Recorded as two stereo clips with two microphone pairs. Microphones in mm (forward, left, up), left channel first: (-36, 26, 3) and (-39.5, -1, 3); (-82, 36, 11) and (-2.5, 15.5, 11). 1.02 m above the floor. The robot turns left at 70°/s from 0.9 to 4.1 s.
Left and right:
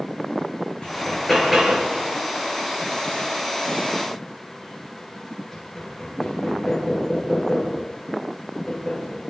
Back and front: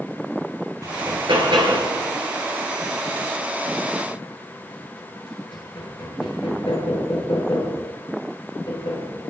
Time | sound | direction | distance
0.8 | hammering | 30° left | 8 m